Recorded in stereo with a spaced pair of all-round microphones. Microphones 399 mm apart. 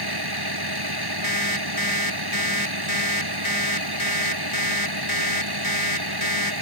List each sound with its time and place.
0.0 s a vehicle: 70° right (ahead or behind)
1.2 s an alarm clock: 55° left (ahead or behind)